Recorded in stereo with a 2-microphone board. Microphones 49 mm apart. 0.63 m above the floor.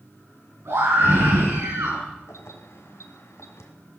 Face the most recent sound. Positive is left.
turn(degrees=75)  # may be behind; listen again after turning